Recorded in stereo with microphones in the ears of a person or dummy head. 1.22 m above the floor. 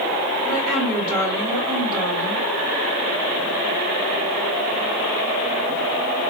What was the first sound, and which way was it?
A woman speaking, 50° right (ahead or behind).